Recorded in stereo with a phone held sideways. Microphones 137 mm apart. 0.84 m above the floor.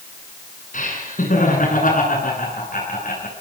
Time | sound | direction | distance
0.7 | laughter | 65° left (ahead or behind) | 9.5 m